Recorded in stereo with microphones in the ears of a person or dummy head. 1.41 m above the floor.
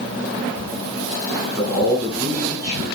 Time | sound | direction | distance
1.6 | a man speaking | 25° right (ahead or behind) | 5 m